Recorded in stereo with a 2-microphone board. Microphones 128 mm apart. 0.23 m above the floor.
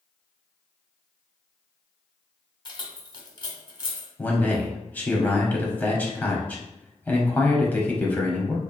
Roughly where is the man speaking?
Centre.